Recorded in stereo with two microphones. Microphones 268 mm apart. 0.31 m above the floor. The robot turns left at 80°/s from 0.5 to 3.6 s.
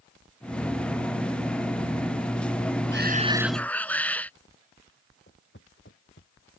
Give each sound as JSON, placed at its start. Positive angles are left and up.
{"t": 2.9, "sound": "a shout", "azimuth_deg": -130}
{"t": 5.3, "sound": "footsteps", "side_deg": 45}